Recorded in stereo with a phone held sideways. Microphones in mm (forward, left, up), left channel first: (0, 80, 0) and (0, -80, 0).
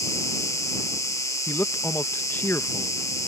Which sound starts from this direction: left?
An insect, at 0.0 s.